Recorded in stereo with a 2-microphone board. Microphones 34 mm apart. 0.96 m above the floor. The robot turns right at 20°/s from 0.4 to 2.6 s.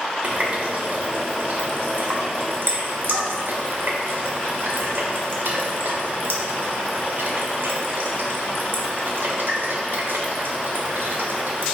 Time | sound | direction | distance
0.2 | a running tap | 50° right (ahead or behind) | 0.7 m